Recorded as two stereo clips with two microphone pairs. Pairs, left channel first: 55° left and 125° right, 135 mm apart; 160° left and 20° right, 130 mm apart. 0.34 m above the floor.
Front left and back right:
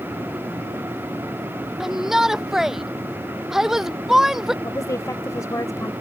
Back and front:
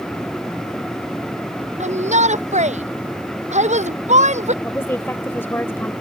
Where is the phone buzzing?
No phone buzzing in this recording.